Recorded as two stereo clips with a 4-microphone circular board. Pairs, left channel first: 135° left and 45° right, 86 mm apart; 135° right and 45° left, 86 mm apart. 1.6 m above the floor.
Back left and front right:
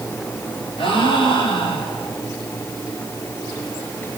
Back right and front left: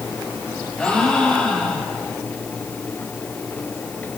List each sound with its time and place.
0.8 s a gasp: 140° left, 7 m